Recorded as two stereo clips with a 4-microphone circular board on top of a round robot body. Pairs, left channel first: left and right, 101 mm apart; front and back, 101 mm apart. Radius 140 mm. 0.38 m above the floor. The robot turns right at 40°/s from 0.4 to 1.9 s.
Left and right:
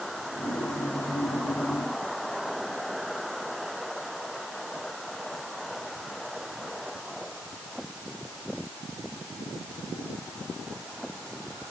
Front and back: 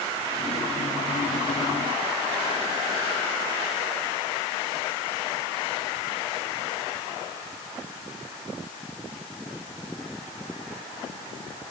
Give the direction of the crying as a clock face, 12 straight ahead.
I don't hear crying.